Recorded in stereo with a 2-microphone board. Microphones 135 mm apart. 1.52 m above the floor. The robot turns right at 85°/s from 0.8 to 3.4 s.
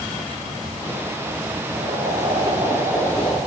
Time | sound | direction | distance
1.7 | boiling | 115° right | 6 m